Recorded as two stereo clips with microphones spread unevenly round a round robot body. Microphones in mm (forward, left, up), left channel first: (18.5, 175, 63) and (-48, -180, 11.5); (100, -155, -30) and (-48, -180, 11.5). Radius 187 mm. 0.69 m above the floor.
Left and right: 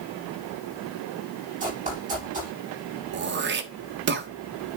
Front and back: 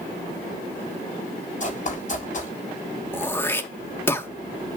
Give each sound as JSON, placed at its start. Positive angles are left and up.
{"t": 1.6, "sound": "running footsteps", "azimuth_deg": -30, "distance_m": 8.0}
{"t": 3.1, "sound": "throat clearing", "azimuth_deg": -50, "distance_m": 1.2}